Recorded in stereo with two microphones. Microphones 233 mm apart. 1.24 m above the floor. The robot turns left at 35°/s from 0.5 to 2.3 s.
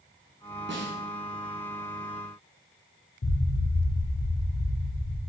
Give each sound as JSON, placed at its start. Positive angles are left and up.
{"t": 0.7, "sound": "a snare drum", "side_deg": -55, "distance_m": 1.0}
{"t": 3.2, "sound": "an explosion", "side_deg": 70, "distance_m": 0.5}